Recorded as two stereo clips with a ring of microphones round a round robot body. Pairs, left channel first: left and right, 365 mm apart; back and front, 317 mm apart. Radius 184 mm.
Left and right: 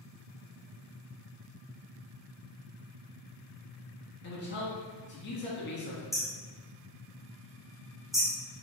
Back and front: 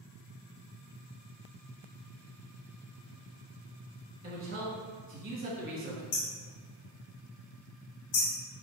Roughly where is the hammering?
Behind.